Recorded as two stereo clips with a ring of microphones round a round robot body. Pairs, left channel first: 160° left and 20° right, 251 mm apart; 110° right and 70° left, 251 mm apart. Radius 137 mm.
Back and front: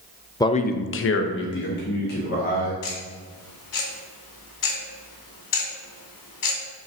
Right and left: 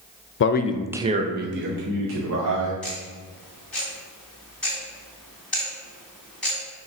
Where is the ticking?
160° left, 2.5 m.